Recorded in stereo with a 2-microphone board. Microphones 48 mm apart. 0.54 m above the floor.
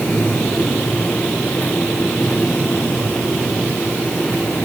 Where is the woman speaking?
I don't hear a woman speaking.